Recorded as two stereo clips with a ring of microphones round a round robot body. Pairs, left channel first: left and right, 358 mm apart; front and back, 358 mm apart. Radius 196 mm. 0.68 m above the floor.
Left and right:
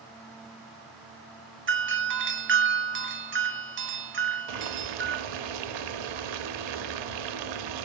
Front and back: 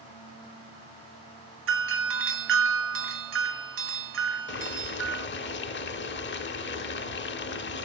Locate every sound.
1.7 s a doorbell: 135° right, 1.4 m
4.5 s boiling: 60° right, 0.9 m